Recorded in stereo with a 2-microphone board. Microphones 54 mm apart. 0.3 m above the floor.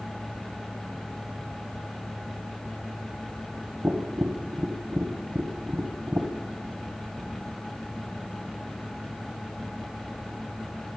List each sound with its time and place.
3.8 s tapping: 45° right (ahead or behind), 1.7 m